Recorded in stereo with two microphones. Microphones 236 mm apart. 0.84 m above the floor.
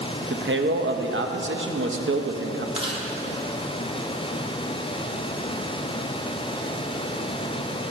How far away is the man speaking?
About 0.6 m.